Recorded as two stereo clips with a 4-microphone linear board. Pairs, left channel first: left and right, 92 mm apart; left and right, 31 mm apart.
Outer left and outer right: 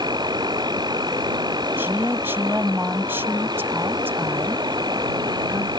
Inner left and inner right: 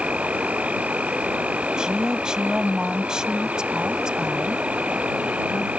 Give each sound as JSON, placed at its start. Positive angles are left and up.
{"t": 0.0, "sound": "an insect", "side_deg": -45}
{"t": 1.8, "sound": "a woman speaking", "side_deg": -25}